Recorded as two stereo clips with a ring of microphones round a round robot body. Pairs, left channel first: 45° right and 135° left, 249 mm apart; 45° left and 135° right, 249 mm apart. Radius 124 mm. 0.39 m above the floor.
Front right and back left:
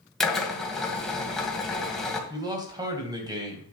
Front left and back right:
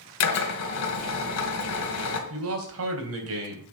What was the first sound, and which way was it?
A drill, 45° left.